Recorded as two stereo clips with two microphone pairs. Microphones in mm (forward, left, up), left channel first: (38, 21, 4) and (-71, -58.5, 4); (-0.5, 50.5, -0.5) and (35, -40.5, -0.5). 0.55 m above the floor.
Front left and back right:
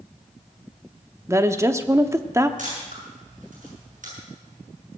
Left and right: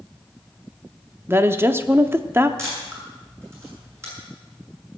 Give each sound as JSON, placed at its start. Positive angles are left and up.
{"t": 1.3, "sound": "a woman speaking", "azimuth_deg": -105, "distance_m": 0.7}
{"t": 2.6, "sound": "a camera shutter", "azimuth_deg": -130, "distance_m": 7.0}